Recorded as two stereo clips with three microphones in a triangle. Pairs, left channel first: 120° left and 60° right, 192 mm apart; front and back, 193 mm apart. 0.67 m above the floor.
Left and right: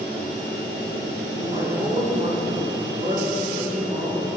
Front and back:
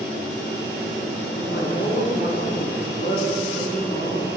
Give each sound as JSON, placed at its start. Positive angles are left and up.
{"t": 1.3, "sound": "a man speaking", "azimuth_deg": -5, "distance_m": 6.5}